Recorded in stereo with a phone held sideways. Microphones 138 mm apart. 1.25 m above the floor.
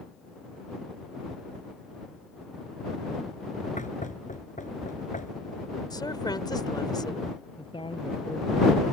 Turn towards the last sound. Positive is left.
turn(degrees=35)  # may be behind; listen again after turning